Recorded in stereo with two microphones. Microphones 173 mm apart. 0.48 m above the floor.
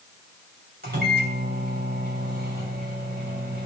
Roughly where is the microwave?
Right.